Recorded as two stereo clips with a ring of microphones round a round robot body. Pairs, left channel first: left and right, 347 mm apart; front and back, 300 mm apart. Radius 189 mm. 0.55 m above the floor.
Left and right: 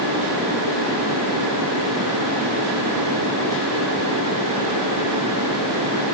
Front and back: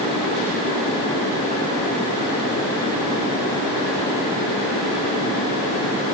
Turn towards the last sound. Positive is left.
No sound to turn to.